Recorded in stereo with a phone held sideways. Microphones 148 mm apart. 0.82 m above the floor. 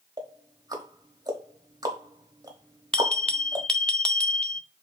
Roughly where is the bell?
Centre.